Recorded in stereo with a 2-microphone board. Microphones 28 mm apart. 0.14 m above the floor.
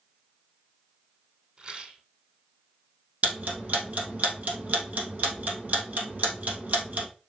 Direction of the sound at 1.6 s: 40° right (ahead or behind).